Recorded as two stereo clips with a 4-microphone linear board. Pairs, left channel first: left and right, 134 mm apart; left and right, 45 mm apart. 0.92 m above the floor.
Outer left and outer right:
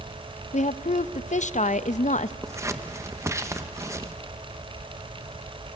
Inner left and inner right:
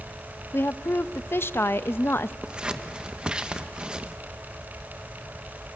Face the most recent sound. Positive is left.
turn(degrees=-20)  # may be behind; listen again after turning